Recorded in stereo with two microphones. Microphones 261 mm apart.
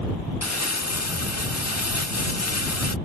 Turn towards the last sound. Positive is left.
turn(degrees=75)  # may be behind; listen again after turning